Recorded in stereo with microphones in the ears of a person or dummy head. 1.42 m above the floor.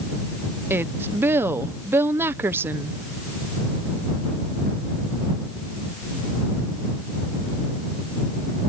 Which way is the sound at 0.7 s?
15° right (ahead or behind).